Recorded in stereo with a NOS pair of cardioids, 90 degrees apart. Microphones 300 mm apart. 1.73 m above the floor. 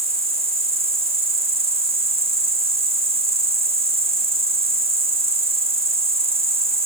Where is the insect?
20° right, 1.3 m.